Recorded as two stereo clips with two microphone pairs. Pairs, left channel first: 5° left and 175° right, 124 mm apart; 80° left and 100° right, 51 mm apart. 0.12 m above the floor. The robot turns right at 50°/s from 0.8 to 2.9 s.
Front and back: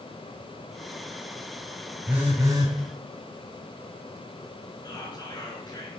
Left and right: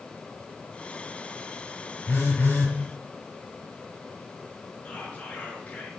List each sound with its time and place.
2.1 s a phone buzzing: 105° left, 1.2 m; by 2.7 s 140° left, 1.2 m
4.8 s whispering: 35° left, 1.5 m